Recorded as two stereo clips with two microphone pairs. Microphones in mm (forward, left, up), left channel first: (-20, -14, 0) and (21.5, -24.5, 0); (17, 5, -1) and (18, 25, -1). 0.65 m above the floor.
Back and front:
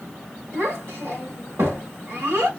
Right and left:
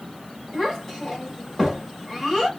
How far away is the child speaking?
About 1.8 m.